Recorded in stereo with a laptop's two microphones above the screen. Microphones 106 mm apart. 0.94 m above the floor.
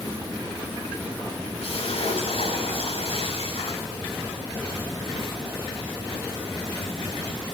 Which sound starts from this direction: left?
A splash, at 1.6 s.